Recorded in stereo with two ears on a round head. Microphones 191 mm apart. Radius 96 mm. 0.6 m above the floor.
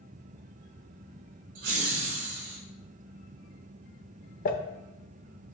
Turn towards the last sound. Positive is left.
turn(degrees=40)  # may be behind; listen again after turning